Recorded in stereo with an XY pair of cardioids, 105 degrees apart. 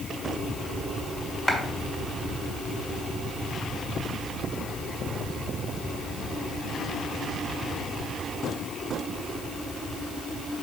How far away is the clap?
About 1.7 m.